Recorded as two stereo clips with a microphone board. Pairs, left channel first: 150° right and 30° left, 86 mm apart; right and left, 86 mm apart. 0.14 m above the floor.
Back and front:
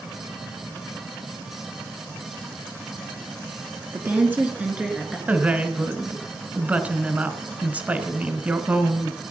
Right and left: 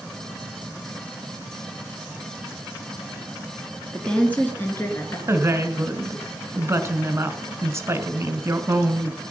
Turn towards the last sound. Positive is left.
turn(degrees=85)